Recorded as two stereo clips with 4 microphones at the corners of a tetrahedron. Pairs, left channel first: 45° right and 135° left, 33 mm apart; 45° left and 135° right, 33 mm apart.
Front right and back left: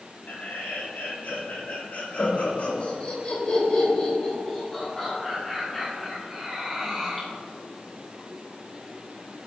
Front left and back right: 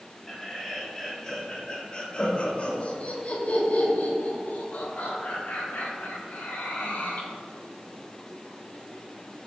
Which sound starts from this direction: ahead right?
Laughter, at 0.3 s.